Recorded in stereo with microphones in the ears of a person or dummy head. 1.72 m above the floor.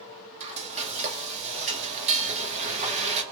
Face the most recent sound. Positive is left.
turn(degrees=-35)  # may be behind; listen again after turning